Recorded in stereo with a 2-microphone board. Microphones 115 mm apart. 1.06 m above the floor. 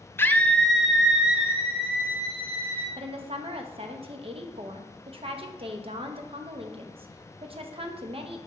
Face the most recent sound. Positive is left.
turn(degrees=-55)  # may be behind; listen again after turning